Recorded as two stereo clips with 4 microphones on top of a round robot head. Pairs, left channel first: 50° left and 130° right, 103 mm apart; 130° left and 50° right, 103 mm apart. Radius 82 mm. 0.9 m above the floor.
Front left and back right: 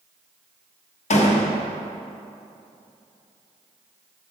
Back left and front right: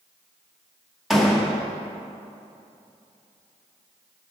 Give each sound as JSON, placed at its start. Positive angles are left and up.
{"t": 1.1, "sound": "a door slam", "azimuth_deg": 40, "distance_m": 1.2}